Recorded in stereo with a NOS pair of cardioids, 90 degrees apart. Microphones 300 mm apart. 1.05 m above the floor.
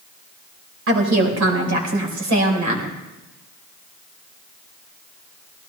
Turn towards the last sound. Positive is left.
turn(degrees=-70)